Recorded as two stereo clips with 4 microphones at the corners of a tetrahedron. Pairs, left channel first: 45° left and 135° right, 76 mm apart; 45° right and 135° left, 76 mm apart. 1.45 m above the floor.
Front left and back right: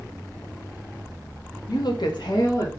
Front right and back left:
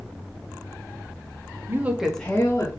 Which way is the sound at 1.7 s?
80° left.